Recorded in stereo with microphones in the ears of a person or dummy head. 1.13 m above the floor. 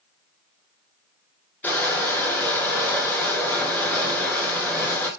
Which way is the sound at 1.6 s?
5° left (ahead or behind).